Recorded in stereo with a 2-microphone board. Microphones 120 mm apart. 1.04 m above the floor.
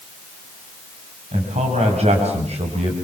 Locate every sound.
1.3 s a man speaking: 65° right (ahead or behind), 5.5 m; by 3.0 s 60° right (ahead or behind), 4.5 m